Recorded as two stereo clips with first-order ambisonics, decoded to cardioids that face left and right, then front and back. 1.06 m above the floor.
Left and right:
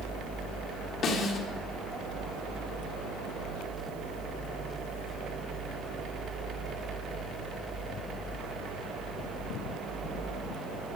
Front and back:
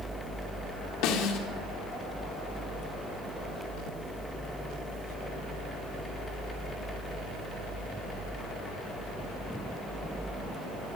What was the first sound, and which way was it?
A snare drum, 30° left.